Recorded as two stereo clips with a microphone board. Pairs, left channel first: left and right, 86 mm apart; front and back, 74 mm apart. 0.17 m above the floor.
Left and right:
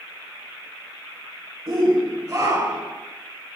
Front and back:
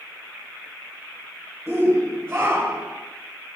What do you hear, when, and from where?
1.7 s a shout: 115° right, 3.5 m; by 3.0 s 135° right, 2 m